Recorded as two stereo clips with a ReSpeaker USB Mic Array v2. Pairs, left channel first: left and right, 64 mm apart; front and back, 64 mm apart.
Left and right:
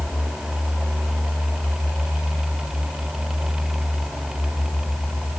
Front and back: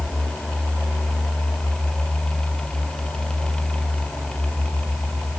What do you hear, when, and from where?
Only background noise.